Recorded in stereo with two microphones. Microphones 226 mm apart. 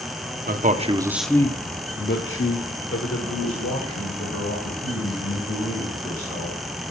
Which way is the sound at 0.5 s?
40° right (ahead or behind).